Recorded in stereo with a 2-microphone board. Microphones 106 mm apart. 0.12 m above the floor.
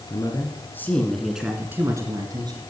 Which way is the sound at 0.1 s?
40° left (ahead or behind).